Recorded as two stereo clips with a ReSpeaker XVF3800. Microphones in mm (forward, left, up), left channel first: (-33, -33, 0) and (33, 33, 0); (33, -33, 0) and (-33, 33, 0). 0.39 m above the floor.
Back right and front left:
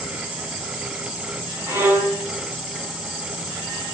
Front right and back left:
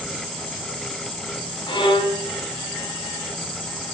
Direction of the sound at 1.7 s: 20° right.